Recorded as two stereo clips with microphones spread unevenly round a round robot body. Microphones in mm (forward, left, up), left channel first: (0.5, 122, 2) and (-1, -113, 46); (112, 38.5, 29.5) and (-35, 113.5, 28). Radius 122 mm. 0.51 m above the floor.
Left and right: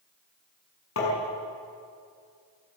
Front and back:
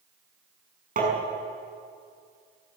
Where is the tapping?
120° left, 6 m.